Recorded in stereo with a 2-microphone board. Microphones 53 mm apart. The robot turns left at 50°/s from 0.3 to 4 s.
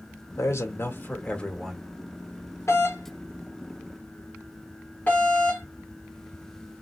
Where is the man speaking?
75° left, 1.5 m; by 1.9 s straight ahead, 1.5 m.